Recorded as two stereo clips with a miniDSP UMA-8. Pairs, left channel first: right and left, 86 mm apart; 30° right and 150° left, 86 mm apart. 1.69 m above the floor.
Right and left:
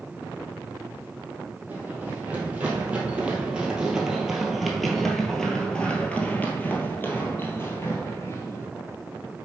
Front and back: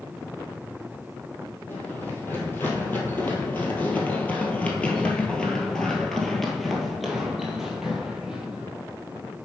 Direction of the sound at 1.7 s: 30° left.